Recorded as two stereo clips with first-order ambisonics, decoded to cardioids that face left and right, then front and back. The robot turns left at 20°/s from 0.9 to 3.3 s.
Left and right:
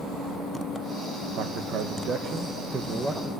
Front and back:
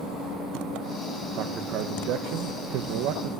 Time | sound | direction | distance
1.4 | a man speaking | 130° right | 1.3 m